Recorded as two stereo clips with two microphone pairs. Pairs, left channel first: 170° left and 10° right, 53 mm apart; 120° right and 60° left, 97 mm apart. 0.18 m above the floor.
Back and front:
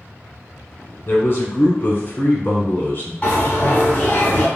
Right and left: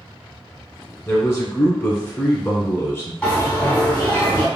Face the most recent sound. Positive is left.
turn(degrees=-175)